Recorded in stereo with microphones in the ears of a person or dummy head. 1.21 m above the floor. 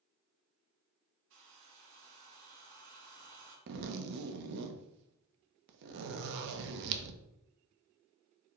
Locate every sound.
1.3 s a hair dryer: 70° right (ahead or behind), 1.1 m
3.7 s a zipper: 65° right (ahead or behind), 0.6 m